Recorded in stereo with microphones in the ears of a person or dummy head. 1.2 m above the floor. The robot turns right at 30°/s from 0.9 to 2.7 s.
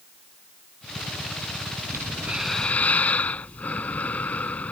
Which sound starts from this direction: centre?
Breathing, at 1.9 s.